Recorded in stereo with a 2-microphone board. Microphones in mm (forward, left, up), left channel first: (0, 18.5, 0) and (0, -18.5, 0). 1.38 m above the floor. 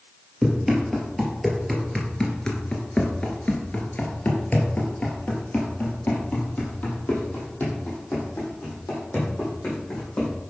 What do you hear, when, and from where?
0.4 s running footsteps: 5° right (ahead or behind), 2.5 m; by 10.3 s 35° left (ahead or behind), 5 m